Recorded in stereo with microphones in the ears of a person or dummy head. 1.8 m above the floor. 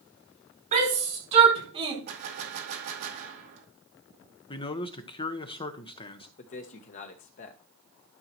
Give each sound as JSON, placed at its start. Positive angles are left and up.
{"t": 0.7, "sound": "a shout", "side_deg": -40, "distance_m": 5.0}
{"t": 2.1, "sound": "a gunshot", "side_deg": -65, "distance_m": 2.5}
{"t": 4.5, "sound": "a man speaking", "side_deg": 25, "distance_m": 1.2}
{"t": 6.4, "sound": "a man speaking", "side_deg": 40, "distance_m": 1.0}